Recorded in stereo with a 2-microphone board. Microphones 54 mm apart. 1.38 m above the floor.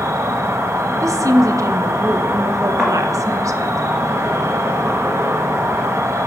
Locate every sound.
0.0 s an insect: 55° right (ahead or behind), 0.7 m
1.0 s a woman speaking: 80° right, 0.6 m
2.8 s a thud: 25° right (ahead or behind), 2 m